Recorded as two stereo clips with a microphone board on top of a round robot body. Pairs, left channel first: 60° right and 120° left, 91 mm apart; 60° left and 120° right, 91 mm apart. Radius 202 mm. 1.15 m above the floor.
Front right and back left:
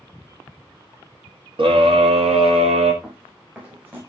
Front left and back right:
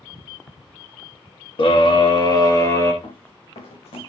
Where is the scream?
90° left, 3 m; by 2.9 s 120° left, 3.5 m.